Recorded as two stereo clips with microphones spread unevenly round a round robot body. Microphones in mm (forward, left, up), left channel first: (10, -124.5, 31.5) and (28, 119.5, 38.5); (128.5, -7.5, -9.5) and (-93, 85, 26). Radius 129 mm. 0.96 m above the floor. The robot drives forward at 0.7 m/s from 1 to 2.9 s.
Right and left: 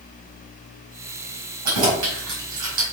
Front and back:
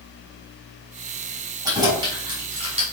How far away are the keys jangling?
About 4.5 m.